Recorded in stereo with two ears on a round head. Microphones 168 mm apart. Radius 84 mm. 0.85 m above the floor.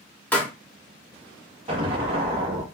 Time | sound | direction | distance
0.3 | a pop | 10° left (ahead or behind) | 0.7 m
1.7 | an explosion | 30° right (ahead or behind) | 0.8 m